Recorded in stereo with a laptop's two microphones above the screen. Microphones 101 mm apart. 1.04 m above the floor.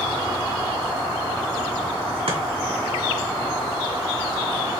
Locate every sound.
2.3 s chopping: 70° right (ahead or behind), 1.8 m